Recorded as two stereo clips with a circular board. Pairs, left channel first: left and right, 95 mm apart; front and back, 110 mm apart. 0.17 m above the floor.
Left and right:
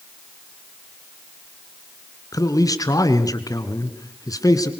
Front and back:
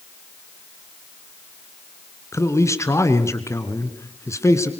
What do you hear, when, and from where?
2.3 s a man speaking: 55° left, 2.5 m